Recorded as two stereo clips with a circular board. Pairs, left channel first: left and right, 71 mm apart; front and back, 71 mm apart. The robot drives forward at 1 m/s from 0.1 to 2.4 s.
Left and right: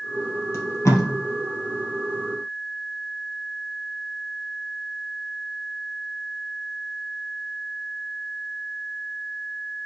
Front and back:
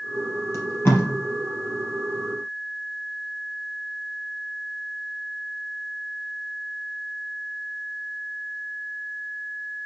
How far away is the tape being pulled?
About 3 m.